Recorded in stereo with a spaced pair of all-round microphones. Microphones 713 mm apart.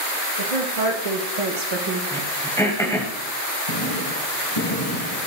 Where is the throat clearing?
5° left (ahead or behind), 1.5 m.